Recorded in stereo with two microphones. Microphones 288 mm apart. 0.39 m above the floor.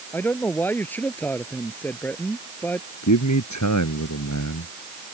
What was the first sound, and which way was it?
A man speaking, 5° left (ahead or behind).